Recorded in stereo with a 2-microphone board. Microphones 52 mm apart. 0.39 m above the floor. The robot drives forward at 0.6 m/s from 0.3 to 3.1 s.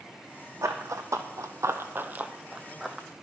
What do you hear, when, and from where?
0.6 s running footsteps: 70° right (ahead or behind), 1.3 m; by 3.1 s 5° left (ahead or behind), 1.1 m